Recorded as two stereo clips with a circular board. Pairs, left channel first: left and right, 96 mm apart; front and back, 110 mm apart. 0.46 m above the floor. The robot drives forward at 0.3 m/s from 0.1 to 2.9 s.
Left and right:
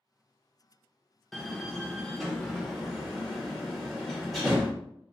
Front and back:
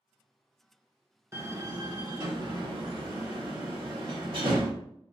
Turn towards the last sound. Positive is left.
turn(degrees=180)